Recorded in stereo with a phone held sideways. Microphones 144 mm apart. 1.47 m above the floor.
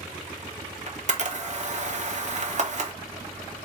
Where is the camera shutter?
50° right (ahead or behind), 0.7 m.